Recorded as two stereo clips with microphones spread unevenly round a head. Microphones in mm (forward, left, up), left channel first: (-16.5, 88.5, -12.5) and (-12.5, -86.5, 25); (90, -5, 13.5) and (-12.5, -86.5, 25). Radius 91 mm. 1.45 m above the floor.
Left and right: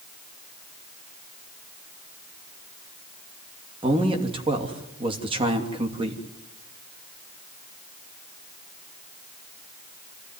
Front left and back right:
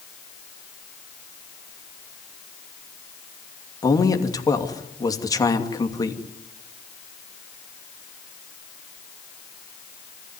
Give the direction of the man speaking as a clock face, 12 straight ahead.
1 o'clock.